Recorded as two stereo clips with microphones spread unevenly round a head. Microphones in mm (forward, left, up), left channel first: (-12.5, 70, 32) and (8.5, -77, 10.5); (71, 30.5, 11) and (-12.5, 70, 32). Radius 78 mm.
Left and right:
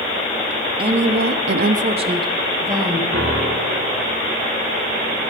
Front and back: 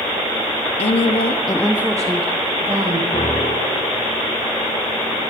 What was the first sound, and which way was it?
A woman speaking, 25° right.